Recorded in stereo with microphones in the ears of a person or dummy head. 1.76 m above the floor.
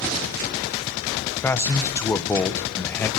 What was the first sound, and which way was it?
A man speaking, 10° left (ahead or behind).